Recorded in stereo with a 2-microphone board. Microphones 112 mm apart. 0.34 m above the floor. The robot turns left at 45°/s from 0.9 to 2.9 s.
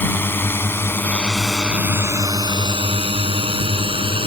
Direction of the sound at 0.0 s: 20° left (ahead or behind).